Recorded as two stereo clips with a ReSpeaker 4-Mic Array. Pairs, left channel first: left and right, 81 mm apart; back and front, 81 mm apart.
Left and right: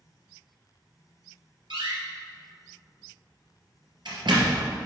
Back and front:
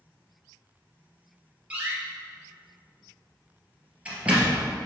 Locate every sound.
1.7 s a door slam: 75° right, 2.5 m